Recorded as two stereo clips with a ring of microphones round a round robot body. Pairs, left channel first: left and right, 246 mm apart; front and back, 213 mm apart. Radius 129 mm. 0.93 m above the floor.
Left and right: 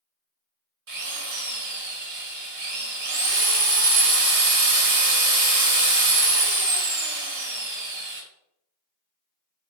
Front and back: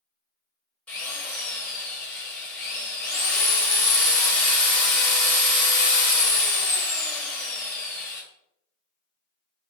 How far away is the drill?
About 1.4 m.